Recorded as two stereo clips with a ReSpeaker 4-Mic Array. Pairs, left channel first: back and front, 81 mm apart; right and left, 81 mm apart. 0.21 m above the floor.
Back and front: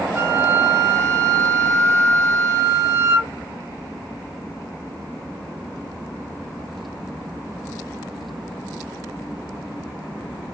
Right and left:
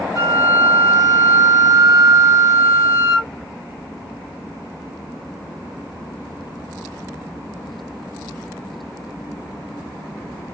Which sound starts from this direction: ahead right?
A flute, at 0.1 s.